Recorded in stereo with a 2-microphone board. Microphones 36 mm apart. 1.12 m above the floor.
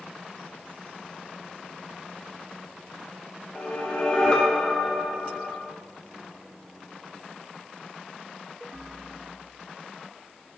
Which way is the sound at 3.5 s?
25° left (ahead or behind).